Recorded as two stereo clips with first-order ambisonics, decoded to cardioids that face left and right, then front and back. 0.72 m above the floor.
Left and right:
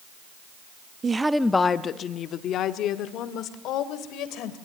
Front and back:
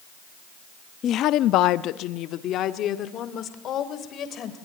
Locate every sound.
1.0 s a woman speaking: 35° right, 0.5 m; by 4.6 s 55° left, 2.5 m